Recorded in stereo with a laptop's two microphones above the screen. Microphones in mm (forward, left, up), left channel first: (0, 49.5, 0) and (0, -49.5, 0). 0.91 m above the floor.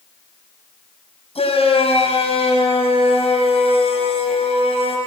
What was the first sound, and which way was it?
A shout, 85° left.